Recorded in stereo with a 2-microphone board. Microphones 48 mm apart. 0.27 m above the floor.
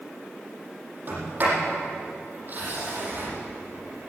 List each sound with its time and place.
1.1 s a sliding door: 40° right (ahead or behind), 7.5 m